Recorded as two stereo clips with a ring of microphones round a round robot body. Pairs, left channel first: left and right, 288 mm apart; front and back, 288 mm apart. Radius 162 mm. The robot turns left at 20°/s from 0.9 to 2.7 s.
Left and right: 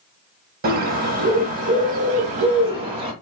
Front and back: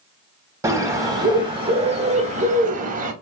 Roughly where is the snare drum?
I don't hear a snare drum.